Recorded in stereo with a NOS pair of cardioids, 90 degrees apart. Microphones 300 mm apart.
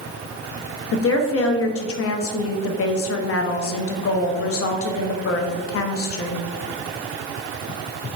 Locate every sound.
0.9 s a woman speaking: 50° left, 0.8 m